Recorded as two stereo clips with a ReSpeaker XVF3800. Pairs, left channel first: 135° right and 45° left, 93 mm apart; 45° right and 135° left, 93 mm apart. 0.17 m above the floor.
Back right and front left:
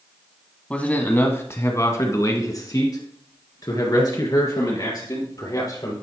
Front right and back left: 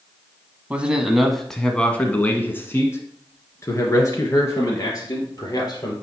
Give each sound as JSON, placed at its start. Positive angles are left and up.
{"t": 0.7, "sound": "a man speaking", "azimuth_deg": 175, "distance_m": 1.1}